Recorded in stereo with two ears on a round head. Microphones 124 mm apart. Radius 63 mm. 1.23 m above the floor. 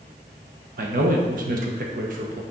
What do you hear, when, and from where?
0.8 s a man speaking: 65° right (ahead or behind), 1.3 m